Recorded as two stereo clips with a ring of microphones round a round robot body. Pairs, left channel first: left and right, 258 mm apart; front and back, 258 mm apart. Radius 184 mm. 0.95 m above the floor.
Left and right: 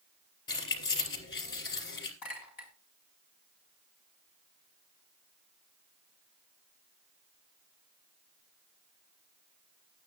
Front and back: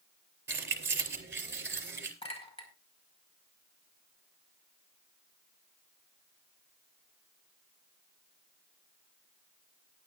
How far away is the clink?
About 5 m.